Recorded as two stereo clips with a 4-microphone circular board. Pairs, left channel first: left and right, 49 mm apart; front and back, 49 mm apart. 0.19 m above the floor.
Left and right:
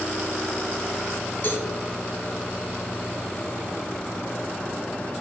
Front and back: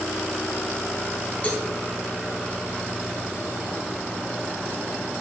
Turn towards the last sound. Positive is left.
turn(degrees=50)